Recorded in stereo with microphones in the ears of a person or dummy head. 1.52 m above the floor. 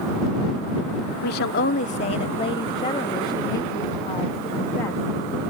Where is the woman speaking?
70° left (ahead or behind); by 5.0 s 20° left (ahead or behind).